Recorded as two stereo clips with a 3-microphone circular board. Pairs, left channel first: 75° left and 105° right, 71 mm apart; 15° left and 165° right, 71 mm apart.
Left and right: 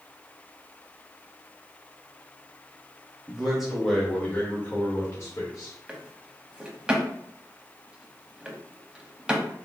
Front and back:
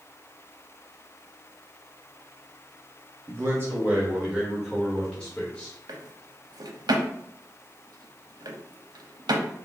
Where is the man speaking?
Straight behind, 1.3 m; by 5.8 s 80° left, 1.5 m.